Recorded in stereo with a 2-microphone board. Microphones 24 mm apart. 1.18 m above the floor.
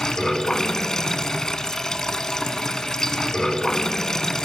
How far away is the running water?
About 1.4 m.